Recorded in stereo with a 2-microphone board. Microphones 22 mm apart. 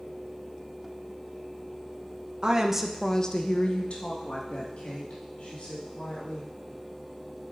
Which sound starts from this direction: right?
A woman speaking, at 2.4 s.